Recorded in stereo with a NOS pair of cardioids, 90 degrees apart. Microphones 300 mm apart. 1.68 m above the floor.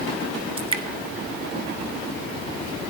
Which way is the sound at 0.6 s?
15° right.